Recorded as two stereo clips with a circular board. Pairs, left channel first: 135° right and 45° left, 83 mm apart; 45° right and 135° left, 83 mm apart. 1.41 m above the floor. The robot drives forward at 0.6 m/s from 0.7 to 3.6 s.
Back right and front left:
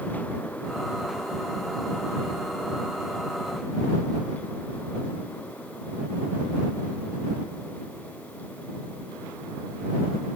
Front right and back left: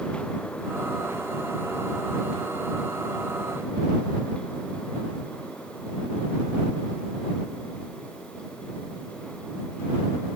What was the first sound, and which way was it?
Only background noise.